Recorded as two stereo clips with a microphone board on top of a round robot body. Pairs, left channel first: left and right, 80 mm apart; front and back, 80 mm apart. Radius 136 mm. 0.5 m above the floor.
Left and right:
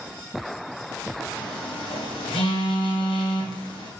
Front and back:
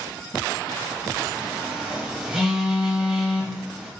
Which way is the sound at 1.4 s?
95° left.